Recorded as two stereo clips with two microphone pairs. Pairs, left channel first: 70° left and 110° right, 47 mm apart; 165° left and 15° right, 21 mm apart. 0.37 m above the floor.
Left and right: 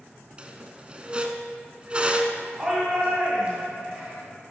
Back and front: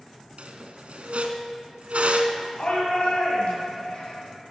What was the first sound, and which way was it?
A squeak, 40° right.